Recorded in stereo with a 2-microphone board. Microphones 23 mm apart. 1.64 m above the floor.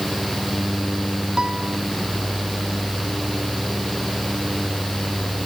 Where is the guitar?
30° right (ahead or behind).